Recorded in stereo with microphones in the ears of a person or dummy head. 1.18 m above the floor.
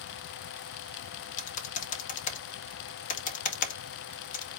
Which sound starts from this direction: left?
Typing on a keyboard, at 1.4 s.